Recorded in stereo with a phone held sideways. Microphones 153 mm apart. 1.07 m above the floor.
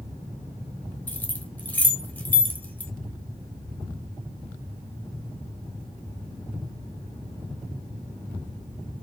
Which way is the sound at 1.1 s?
15° left (ahead or behind).